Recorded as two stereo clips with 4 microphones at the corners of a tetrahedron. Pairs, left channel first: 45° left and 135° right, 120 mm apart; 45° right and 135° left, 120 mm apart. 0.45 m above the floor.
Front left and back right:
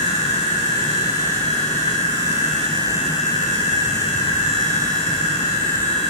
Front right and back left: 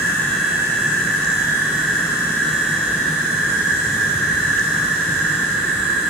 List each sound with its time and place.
0.0 s an insect: 55° left, 9 m